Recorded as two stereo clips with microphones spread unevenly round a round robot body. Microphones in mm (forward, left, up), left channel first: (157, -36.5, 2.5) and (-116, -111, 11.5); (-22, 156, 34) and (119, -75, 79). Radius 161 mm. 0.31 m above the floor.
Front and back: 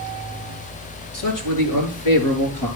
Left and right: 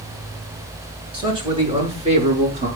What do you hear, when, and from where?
1.1 s a man speaking: 15° left, 6 m; by 2.7 s 5° left, 6 m